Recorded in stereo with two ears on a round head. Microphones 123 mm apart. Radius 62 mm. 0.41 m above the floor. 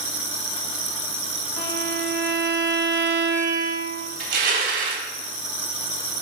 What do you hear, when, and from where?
1.6 s a violin: 20° left (ahead or behind), 0.9 m
4.2 s crushing: 65° right (ahead or behind), 0.6 m